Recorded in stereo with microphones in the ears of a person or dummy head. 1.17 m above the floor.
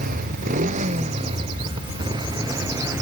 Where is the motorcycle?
50° right (ahead or behind); by 3.0 s 15° right (ahead or behind).